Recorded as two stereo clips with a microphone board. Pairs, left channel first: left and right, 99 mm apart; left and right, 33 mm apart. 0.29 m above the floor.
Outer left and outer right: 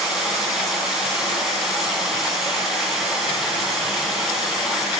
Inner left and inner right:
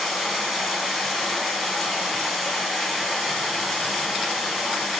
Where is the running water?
5° right (ahead or behind), 2.5 m.